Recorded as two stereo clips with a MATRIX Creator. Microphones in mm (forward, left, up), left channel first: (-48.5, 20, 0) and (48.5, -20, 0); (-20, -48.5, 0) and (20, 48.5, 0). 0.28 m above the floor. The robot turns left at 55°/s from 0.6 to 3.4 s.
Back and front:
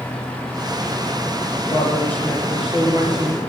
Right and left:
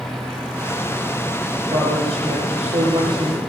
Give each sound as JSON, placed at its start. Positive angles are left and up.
{"t": 1.7, "sound": "a woman speaking", "azimuth_deg": 105, "distance_m": 6.0}